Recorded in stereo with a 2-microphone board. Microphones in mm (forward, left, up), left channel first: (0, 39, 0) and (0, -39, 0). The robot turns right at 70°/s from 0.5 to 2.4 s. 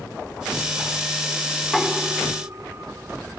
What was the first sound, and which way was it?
Knocking, 15° left (ahead or behind).